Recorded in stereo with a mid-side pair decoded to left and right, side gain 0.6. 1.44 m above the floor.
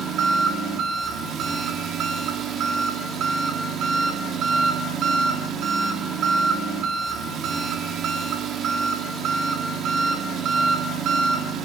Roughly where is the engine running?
Ahead right.